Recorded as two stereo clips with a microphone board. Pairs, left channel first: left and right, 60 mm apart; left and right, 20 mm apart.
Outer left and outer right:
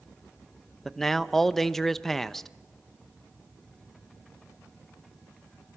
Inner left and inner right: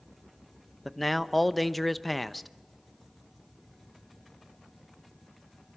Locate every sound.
0.8 s a man speaking: 5° left (ahead or behind), 0.8 m